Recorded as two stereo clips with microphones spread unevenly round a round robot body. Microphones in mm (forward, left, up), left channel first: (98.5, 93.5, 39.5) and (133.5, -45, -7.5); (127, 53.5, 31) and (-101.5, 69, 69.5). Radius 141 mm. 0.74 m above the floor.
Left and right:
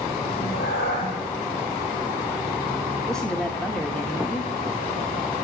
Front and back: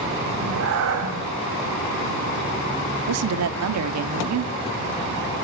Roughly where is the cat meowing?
Behind left.